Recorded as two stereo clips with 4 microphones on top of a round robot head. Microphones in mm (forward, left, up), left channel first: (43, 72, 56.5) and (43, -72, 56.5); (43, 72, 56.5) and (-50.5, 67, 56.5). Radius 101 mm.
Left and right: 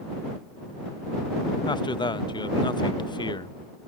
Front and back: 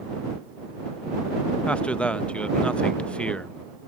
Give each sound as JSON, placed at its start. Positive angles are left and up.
{"t": 1.7, "sound": "a man speaking", "azimuth_deg": 70}